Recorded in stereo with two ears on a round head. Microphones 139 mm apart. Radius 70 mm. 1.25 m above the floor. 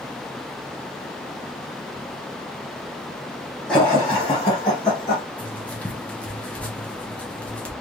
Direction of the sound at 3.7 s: 5° left (ahead or behind).